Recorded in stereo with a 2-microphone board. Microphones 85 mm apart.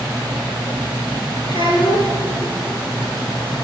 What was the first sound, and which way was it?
A child speaking, 80° left.